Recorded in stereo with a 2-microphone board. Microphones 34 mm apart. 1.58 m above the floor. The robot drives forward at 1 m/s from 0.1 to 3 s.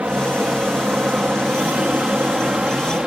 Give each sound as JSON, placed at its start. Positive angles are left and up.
{"t": 0.0, "sound": "an aircraft", "side_deg": -55}